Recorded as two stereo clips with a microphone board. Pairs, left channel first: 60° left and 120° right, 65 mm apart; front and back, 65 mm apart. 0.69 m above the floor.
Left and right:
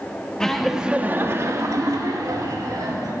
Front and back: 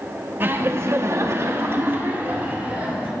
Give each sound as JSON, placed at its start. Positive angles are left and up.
{"t": 0.4, "sound": "laughter", "azimuth_deg": 140, "distance_m": 1.1}